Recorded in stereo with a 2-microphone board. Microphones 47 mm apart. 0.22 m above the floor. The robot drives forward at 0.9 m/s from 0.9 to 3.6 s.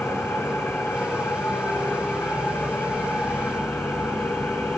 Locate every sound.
0.0 s an engine running: 75° left (ahead or behind), 8 m; by 4.8 s 60° left (ahead or behind), 9 m